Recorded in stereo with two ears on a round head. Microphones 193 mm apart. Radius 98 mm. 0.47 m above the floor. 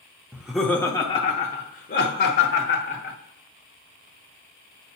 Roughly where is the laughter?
Centre.